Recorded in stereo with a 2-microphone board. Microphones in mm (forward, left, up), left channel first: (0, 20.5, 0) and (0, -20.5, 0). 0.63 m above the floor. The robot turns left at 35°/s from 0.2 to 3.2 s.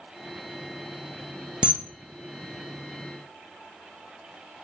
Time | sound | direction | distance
1.6 | a camera shutter | 25° right (ahead or behind) | 0.6 m